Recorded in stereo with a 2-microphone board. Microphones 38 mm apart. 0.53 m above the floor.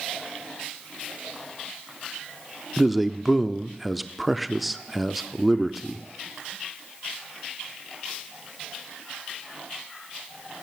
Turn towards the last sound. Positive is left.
turn(degrees=0)  # may be behind; listen again after turning